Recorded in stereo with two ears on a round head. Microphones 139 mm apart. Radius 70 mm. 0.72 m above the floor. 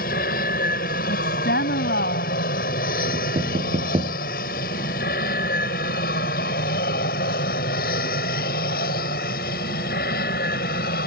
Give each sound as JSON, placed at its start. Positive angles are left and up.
{"t": 0.0, "sound": "an aircraft", "side_deg": 65}
{"t": 1.1, "sound": "a woman speaking", "side_deg": 75}
{"t": 3.1, "sound": "knocking", "side_deg": -35}